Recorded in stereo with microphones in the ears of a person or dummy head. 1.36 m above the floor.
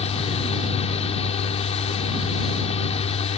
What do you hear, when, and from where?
0.0 s a fan: 35° left (ahead or behind)